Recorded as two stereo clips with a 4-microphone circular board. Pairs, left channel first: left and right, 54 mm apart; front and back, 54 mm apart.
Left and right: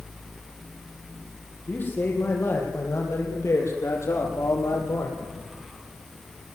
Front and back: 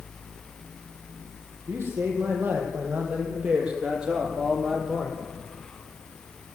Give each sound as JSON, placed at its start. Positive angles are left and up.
{"t": 1.7, "sound": "a man speaking", "azimuth_deg": 140, "distance_m": 6.5}